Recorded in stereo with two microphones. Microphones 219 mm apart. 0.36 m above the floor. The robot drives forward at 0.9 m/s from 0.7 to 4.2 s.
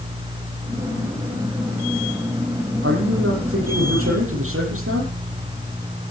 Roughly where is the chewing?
No chewing in this recording.